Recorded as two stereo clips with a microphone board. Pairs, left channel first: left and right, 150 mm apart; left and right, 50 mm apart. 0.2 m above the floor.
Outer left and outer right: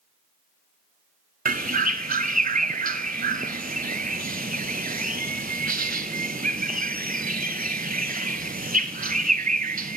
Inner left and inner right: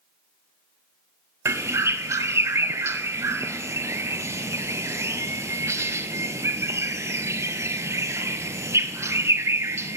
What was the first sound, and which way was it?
A bird, 70° right (ahead or behind).